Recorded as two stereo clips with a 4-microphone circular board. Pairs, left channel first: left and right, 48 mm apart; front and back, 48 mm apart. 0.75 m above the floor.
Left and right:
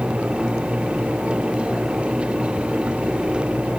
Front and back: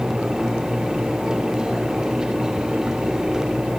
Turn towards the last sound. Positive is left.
No sound to turn to.